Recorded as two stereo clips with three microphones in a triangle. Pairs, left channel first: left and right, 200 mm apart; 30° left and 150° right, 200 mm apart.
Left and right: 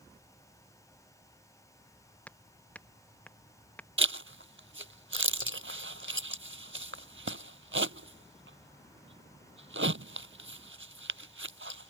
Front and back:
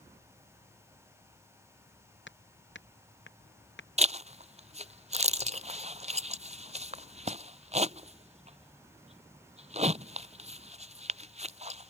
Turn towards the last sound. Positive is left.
turn(degrees=-95)